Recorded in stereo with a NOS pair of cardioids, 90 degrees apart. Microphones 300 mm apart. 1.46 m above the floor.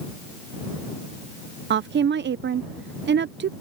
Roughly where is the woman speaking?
Ahead right.